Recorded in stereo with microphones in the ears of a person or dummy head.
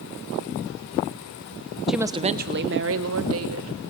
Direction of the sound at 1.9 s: Centre (ahead or behind).